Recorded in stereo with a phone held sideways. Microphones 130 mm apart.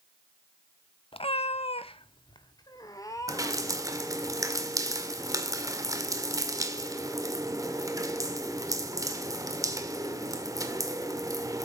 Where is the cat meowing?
40° left (ahead or behind), 0.8 m; by 3.9 s 20° left (ahead or behind), 3 m.